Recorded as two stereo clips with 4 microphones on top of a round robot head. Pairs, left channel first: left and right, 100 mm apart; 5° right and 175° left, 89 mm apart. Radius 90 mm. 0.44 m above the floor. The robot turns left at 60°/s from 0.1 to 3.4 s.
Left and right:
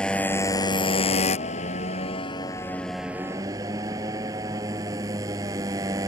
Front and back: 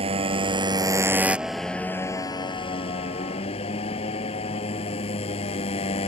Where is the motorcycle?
170° left; by 6.1 s 25° right.